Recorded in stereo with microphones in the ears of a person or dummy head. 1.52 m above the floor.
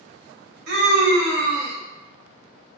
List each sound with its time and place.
0.7 s a scream: 65° right (ahead or behind), 0.9 m